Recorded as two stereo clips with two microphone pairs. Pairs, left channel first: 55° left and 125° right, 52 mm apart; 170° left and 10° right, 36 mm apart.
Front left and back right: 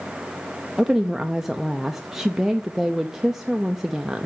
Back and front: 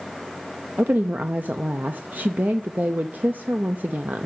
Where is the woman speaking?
45° right, 0.6 m.